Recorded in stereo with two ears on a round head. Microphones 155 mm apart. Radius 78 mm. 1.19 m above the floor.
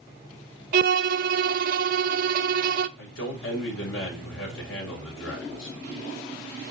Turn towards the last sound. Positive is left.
turn(degrees=90)